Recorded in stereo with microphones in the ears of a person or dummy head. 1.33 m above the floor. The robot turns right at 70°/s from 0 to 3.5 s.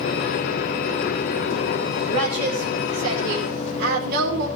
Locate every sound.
2.1 s a woman speaking: 150° right, 5 m; by 4.5 s 55° right, 5 m